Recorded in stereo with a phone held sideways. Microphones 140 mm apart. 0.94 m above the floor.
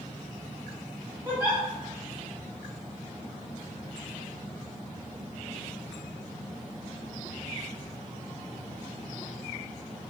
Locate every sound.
1.2 s a giggle: 10° right (ahead or behind), 1.3 m